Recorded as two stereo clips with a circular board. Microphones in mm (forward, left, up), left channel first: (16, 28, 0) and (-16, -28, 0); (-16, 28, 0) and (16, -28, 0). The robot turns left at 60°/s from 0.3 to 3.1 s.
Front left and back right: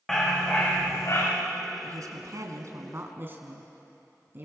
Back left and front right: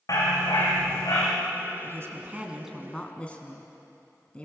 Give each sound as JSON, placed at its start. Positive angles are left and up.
{"t": 0.1, "sound": "a dog barking", "azimuth_deg": 145, "distance_m": 6.0}
{"t": 1.8, "sound": "a woman speaking", "azimuth_deg": -95, "distance_m": 3.0}